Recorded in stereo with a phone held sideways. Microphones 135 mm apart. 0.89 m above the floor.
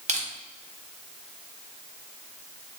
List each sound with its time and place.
0.1 s crushing: 55° right (ahead or behind), 0.7 m